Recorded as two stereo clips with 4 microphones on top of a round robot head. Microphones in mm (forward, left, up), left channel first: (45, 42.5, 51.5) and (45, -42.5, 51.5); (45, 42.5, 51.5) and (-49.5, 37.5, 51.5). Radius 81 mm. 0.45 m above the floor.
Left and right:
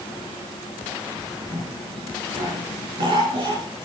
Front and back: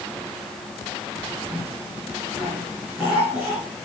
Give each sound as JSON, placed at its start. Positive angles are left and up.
{"t": 1.5, "sound": "a cough", "azimuth_deg": -95, "distance_m": 7.5}